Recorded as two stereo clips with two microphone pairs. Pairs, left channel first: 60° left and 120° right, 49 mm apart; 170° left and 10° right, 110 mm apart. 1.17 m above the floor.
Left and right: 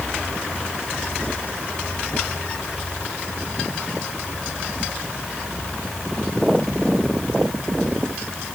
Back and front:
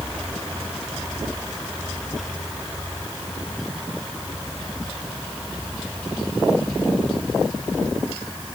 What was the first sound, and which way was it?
Only background noise.